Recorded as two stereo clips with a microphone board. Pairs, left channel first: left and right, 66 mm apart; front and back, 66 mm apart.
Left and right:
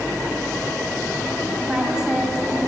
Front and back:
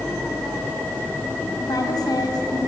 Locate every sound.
1.6 s a woman speaking: 10° right, 3.5 m